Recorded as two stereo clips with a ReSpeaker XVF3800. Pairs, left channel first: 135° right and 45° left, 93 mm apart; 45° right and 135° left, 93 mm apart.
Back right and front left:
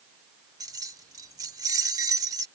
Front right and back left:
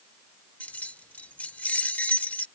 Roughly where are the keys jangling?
Ahead.